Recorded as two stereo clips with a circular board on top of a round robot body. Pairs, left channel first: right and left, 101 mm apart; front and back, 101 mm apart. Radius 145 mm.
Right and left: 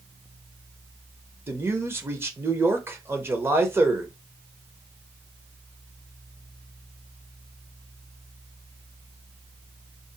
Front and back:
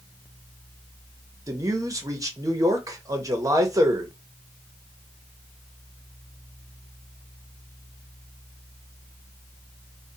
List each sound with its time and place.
1.5 s a man speaking: 145° left, 0.9 m